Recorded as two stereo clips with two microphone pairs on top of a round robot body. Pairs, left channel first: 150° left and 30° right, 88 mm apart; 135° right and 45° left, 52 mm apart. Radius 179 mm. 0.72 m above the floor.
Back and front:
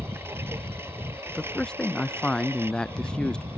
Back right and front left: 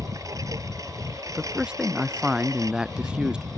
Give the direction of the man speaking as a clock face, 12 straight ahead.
9 o'clock.